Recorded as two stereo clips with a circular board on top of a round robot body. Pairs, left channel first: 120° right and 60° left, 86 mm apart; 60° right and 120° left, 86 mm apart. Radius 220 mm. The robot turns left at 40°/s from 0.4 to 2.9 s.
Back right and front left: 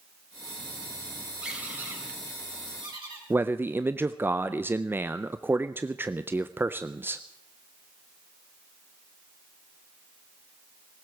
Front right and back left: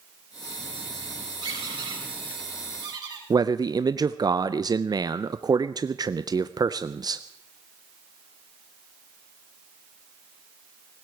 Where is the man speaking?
120° left, 0.7 m.